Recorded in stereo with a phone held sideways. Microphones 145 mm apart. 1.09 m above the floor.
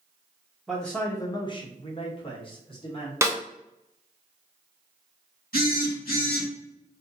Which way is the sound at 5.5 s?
85° left.